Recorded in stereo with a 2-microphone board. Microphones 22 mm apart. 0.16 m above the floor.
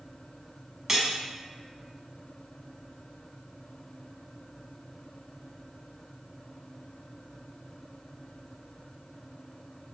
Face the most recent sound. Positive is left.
turn(degrees=-20)  # may be behind; listen again after turning